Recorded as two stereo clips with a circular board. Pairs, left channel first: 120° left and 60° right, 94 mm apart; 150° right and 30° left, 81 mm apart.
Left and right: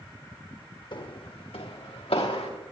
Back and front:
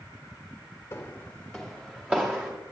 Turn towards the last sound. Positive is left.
turn(degrees=95)